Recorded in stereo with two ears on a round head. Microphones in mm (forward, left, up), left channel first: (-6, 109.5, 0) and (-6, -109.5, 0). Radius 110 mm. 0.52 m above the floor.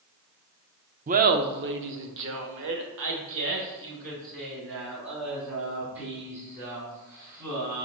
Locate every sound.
1.1 s laughter: 30° right (ahead or behind), 0.7 m; by 7.9 s 50° right (ahead or behind), 5 m